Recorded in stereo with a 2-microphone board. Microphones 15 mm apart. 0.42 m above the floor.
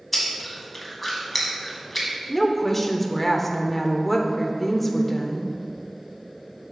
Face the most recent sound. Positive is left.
turn(degrees=20)  # may be behind; listen again after turning